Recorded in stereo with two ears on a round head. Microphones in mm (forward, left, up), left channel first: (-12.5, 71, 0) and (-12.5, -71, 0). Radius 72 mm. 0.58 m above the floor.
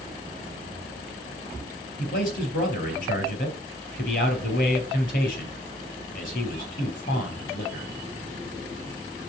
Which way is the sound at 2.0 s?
55° left (ahead or behind).